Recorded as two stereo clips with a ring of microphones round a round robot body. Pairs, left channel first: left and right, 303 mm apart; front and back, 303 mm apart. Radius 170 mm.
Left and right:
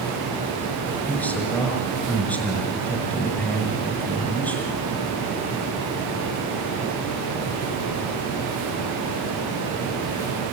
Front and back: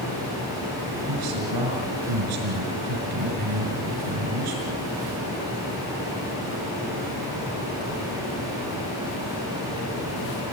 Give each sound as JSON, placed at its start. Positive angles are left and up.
{"t": 1.1, "sound": "a man speaking", "azimuth_deg": 175, "distance_m": 5.5}